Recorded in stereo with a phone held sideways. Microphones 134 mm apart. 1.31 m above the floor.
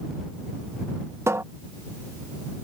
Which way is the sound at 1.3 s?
20° right (ahead or behind).